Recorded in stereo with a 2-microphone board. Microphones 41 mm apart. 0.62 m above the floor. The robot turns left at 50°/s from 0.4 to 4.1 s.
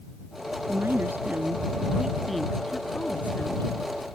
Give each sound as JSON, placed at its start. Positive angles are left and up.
{"t": 0.7, "sound": "a woman speaking", "side_deg": -80}